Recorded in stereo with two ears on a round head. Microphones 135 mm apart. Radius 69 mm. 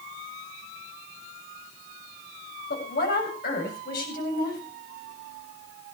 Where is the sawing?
I don't hear sawing.